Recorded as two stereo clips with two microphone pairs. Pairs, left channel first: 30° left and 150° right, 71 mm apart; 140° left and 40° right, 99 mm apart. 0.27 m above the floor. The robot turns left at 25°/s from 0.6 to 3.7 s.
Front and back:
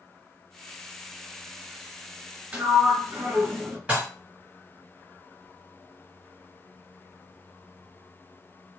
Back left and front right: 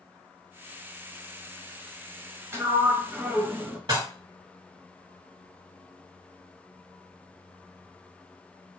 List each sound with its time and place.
2.5 s a sliding door: 90° right, 0.7 m; by 3.8 s 120° right, 0.7 m
3.9 s dishes clattering: 75° right, 1.8 m